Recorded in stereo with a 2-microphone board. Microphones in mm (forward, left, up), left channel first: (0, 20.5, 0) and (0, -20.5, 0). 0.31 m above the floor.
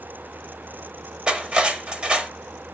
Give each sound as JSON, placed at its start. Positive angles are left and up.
{"t": 1.3, "sound": "cutlery clinking", "side_deg": -25, "distance_m": 0.5}